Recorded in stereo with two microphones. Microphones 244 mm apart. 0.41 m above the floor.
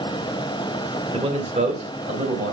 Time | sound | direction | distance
1.1 | a man speaking | 25° right (ahead or behind) | 1.8 m